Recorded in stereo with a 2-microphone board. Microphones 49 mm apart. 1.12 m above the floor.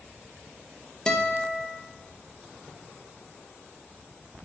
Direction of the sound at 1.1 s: 15° left (ahead or behind).